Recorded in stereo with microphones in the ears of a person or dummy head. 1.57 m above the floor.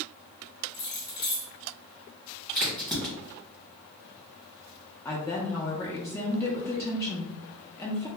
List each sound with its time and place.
0.7 s keys jangling: 20° left (ahead or behind), 0.7 m
2.5 s a crack: centre (ahead or behind), 1.3 m
5.0 s a woman speaking: 15° left (ahead or behind), 0.6 m